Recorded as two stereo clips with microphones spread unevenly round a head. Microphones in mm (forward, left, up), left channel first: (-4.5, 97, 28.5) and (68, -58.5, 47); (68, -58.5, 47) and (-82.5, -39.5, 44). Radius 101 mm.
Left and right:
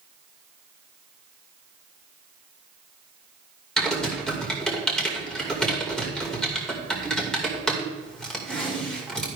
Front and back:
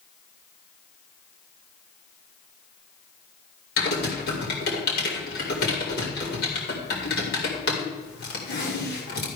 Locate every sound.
3.8 s typing on a keyboard: 25° left, 2.5 m